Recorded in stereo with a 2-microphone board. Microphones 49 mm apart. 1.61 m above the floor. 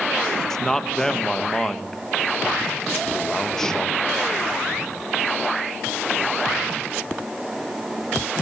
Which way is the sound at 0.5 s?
10° left (ahead or behind).